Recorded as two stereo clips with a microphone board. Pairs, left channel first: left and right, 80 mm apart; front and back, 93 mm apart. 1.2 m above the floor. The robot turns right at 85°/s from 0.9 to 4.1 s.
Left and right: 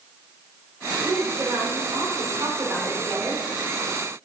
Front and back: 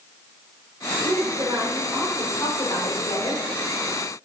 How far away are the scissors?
I don't hear scissors.